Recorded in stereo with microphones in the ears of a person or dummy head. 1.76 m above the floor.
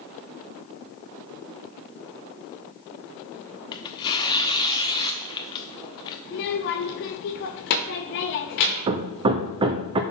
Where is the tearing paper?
20° left (ahead or behind), 0.8 m.